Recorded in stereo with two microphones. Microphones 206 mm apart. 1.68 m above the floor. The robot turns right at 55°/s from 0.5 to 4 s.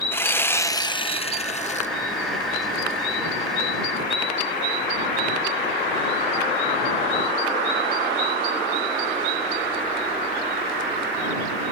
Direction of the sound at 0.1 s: 20° left.